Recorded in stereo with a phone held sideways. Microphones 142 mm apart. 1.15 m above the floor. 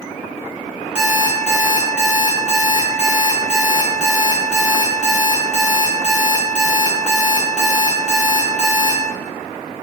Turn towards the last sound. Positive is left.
turn(degrees=-5)  # may be behind; listen again after turning